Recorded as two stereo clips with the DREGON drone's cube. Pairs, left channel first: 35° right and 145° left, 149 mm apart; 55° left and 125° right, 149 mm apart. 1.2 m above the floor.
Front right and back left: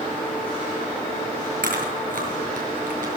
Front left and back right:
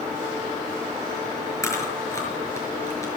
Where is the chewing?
125° left, 5.5 m.